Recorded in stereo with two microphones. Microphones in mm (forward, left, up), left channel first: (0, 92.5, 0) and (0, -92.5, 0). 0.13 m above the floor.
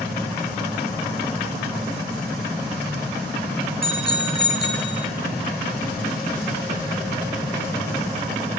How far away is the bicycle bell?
About 2.5 m.